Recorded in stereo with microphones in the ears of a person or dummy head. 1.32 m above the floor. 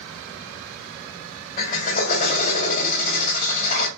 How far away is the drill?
About 1.2 m.